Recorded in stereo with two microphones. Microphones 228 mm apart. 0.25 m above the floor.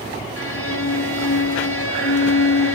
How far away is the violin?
About 0.7 m.